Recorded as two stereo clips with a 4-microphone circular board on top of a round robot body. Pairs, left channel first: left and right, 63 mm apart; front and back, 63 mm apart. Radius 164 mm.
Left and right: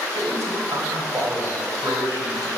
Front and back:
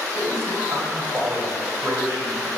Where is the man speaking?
140° right, 3.5 m.